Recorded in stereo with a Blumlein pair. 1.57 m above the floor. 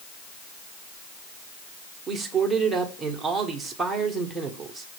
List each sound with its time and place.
2.1 s a man speaking: 10° right, 1.5 m